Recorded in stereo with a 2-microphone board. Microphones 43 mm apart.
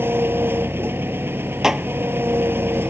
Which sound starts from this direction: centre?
Dishes clattering, at 1.6 s.